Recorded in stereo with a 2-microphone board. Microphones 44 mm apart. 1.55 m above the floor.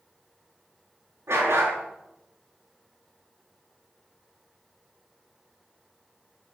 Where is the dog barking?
80° right, 5.5 m.